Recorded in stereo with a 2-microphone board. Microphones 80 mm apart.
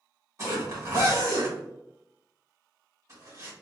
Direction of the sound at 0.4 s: 40° right (ahead or behind).